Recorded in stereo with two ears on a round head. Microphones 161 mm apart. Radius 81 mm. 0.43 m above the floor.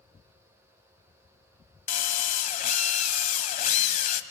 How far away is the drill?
About 1.4 m.